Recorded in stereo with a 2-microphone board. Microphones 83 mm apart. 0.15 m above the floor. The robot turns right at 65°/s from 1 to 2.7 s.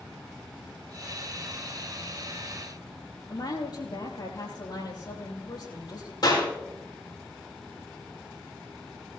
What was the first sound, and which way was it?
A woman speaking, 60° left (ahead or behind).